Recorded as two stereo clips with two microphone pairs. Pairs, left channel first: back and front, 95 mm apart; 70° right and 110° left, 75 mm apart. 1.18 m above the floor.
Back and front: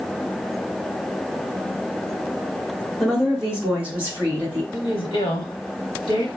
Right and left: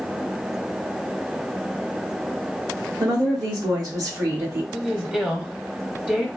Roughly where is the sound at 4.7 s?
Behind.